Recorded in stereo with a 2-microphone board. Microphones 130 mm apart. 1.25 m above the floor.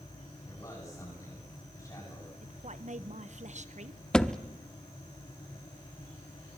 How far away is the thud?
About 0.8 m.